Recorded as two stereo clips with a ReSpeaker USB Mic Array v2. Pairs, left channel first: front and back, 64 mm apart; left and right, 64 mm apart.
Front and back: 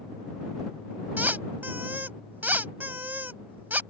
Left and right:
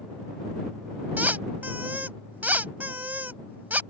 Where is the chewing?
No chewing in this recording.